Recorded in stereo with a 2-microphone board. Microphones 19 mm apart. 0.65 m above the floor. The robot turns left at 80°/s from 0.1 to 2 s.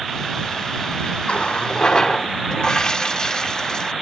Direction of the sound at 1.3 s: 100° left.